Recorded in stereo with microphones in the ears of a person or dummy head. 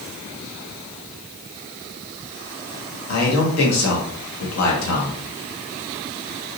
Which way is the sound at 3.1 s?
80° left.